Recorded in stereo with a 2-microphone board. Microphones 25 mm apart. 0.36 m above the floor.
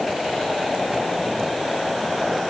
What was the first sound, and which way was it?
Only background noise.